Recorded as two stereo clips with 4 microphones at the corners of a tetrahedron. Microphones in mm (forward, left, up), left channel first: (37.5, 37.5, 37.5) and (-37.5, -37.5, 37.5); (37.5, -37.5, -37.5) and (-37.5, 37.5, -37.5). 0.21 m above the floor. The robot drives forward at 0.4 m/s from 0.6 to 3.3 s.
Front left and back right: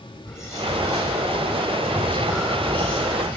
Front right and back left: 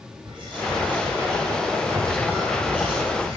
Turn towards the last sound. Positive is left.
turn(degrees=150)